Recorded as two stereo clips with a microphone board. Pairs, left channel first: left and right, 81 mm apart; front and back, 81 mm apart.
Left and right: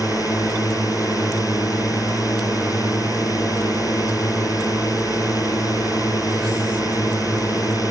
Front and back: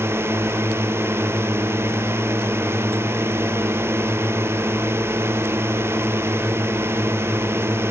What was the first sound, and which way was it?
A drone, 125° left.